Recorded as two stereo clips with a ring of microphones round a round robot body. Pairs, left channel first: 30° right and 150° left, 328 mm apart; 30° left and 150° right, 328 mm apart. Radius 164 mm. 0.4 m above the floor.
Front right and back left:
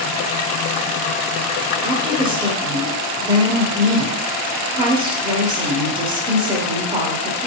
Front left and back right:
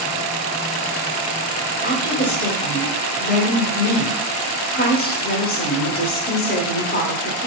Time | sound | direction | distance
1.8 | a woman speaking | 80° left | 1.2 m